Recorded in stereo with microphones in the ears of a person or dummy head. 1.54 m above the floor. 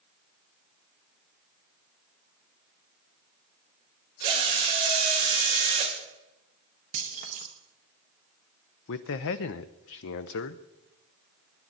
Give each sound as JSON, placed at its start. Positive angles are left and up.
{"t": 4.2, "sound": "a drill", "side_deg": -25, "distance_m": 2.0}
{"t": 6.9, "sound": "keys jangling", "side_deg": -30, "distance_m": 1.0}
{"t": 8.9, "sound": "a man speaking", "side_deg": 60, "distance_m": 0.6}